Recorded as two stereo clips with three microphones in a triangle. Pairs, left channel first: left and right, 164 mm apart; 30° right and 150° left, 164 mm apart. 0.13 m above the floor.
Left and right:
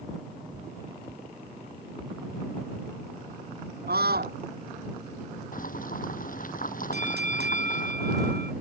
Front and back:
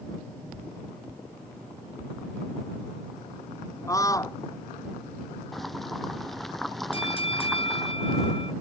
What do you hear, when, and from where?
3.9 s a scream: 100° right
5.5 s boiling: 60° left
6.9 s a bell: 85° right